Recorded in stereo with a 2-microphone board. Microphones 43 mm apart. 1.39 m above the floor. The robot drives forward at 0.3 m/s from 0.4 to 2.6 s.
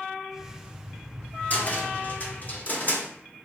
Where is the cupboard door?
40° left (ahead or behind), 1.2 m; by 3.1 s 45° left (ahead or behind), 1.1 m.